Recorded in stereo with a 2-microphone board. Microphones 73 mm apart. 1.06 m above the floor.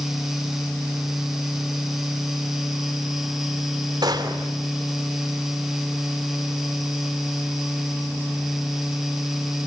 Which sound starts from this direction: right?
A gunshot, at 4.0 s.